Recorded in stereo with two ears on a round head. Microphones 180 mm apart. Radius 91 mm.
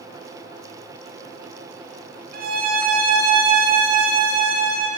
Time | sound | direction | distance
2.3 | a violin | 50° right (ahead or behind) | 0.7 m